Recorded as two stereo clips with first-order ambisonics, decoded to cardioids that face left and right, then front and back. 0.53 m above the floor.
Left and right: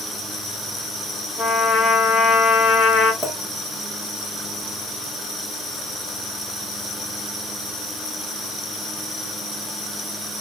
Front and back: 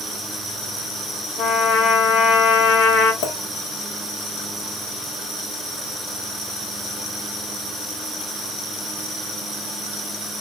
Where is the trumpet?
30° left, 0.8 m.